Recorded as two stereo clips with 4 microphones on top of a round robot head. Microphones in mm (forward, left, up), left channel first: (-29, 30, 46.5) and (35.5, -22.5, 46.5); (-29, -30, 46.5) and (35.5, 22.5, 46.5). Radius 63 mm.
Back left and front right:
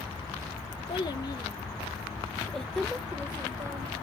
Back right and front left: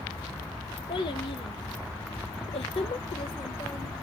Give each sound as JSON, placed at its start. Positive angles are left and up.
{"t": 0.9, "sound": "a child speaking", "azimuth_deg": -175, "distance_m": 1.4}